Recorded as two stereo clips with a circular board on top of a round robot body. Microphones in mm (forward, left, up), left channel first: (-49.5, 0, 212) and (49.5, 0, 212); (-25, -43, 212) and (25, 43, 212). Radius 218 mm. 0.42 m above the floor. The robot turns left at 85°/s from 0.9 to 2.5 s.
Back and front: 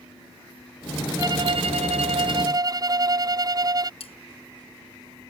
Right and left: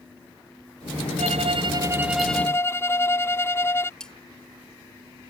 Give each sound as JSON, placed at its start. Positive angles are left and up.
{"t": 1.2, "sound": "a violin", "azimuth_deg": 60}
{"t": 4.0, "sound": "cutlery clinking", "azimuth_deg": 155}